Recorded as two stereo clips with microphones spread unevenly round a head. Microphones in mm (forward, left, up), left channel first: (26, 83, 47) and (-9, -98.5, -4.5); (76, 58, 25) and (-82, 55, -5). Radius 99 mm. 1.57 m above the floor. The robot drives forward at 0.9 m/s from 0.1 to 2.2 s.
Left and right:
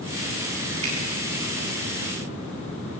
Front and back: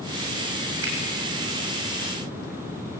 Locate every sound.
0.8 s a finger snap: 160° right, 8 m